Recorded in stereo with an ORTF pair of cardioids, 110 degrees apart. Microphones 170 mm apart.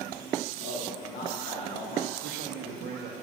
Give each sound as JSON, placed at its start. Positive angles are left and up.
{"t": 0.6, "sound": "a man speaking", "azimuth_deg": 60, "distance_m": 1.8}
{"t": 2.2, "sound": "a man speaking", "azimuth_deg": -70, "distance_m": 1.2}